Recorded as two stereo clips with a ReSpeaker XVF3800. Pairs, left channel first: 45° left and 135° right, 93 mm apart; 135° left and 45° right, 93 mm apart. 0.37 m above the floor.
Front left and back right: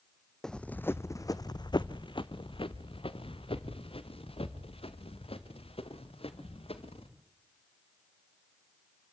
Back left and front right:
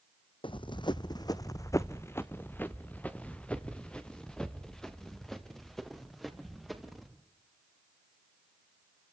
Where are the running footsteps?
130° left, 0.8 m; by 7.1 s 45° left, 4 m.